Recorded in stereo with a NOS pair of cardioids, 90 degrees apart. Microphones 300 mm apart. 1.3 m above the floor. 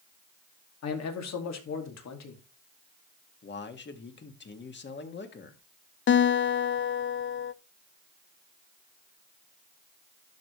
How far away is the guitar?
About 0.6 m.